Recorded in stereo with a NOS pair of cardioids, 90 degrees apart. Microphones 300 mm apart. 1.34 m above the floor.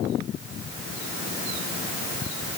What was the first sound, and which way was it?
Only background noise.